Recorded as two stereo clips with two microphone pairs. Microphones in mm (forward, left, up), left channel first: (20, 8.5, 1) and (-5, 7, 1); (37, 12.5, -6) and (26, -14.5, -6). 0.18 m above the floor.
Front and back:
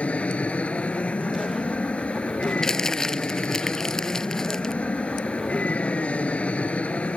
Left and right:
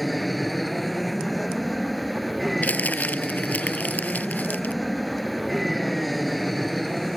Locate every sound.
0.0 s an aircraft: 20° right
2.6 s crumpling: 70° left